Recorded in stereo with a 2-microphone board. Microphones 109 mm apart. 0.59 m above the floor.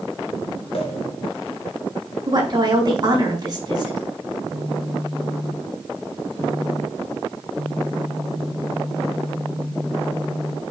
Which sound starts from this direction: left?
A pop, at 0.7 s.